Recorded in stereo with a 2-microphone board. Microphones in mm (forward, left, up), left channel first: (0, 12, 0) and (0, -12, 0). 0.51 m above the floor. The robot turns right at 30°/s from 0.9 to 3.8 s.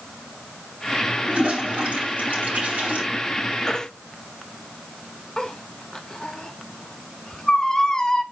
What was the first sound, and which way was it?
A toilet flushing, 50° right (ahead or behind).